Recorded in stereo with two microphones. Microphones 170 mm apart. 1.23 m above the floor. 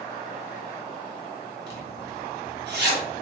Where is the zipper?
80° right, 1.2 m.